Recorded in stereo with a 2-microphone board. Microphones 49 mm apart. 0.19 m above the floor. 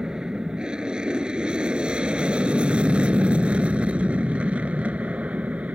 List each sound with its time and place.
0.0 s an aircraft: 15° right (ahead or behind); by 5.8 s 30° right (ahead or behind)